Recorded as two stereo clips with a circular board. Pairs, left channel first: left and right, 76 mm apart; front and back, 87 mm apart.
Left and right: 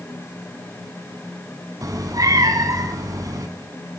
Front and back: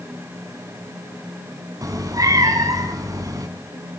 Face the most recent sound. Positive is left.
turn(degrees=-130)